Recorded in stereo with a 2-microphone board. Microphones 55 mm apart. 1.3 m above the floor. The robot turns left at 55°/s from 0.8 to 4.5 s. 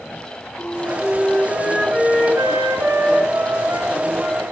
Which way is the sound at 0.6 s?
35° left.